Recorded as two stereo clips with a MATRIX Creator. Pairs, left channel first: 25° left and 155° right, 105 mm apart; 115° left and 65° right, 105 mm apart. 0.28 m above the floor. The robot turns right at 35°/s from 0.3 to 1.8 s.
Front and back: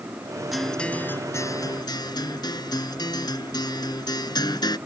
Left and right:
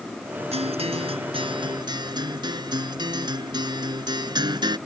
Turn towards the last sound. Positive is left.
turn(degrees=-25)